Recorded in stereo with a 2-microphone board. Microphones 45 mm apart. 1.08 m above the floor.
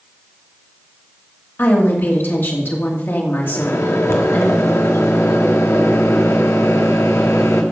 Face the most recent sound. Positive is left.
turn(degrees=75)  # may be behind; listen again after turning